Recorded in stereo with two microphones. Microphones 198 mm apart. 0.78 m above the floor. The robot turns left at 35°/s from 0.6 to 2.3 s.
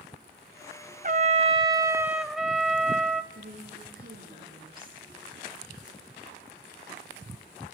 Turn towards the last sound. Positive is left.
turn(degrees=-45)  # may be behind; listen again after turning